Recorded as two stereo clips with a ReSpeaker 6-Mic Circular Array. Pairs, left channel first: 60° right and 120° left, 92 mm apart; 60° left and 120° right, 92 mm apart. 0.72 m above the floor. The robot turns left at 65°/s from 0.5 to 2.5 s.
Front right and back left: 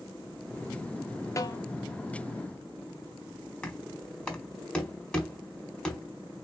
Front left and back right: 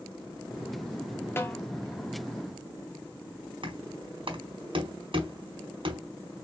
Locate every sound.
1.4 s a snare drum: 5° right, 0.8 m; by 1.6 s 20° right, 0.8 m
3.6 s knocking: 140° right, 1.7 m